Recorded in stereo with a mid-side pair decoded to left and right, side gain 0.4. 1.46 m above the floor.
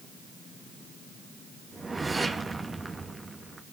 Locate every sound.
1.7 s a whoosh: 25° right, 2.5 m